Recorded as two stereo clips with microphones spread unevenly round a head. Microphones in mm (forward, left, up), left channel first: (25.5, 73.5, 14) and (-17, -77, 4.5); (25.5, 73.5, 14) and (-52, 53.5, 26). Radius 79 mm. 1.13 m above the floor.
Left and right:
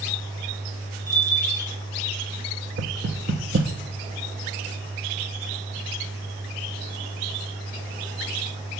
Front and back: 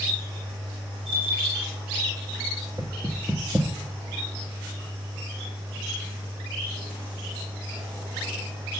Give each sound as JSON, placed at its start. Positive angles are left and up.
{"t": 1.1, "sound": "a bell", "azimuth_deg": -145, "distance_m": 5.5}
{"t": 2.8, "sound": "knocking", "azimuth_deg": -90, "distance_m": 0.9}